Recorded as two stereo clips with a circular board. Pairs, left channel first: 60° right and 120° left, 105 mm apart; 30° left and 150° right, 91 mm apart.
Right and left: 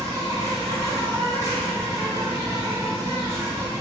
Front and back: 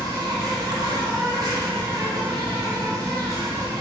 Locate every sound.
0.0 s an insect: 170° left, 1.4 m